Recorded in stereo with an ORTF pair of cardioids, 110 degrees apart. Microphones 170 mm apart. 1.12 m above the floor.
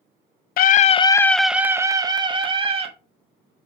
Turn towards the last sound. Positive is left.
turn(degrees=-35)